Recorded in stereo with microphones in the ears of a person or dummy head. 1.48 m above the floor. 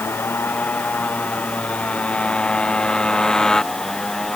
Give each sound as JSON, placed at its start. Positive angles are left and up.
{"t": 0.0, "sound": "a motorcycle", "side_deg": 15}